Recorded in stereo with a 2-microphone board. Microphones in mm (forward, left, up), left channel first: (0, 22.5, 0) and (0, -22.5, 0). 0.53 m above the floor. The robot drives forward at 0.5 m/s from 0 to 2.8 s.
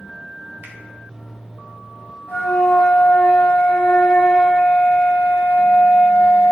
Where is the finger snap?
55° right (ahead or behind), 1.2 m; by 0.8 s 50° right (ahead or behind), 1.2 m.